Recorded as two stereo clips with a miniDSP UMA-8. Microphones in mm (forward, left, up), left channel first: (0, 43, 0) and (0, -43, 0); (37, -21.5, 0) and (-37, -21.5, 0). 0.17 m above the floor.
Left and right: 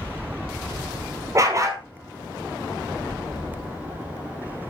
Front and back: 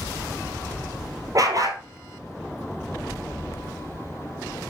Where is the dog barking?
140° right, 1.8 m.